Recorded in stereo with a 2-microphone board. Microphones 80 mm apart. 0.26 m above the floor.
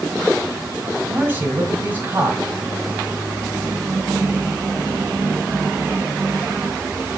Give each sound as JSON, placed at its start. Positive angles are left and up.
{"t": 1.1, "sound": "a man speaking", "side_deg": -25, "distance_m": 1.3}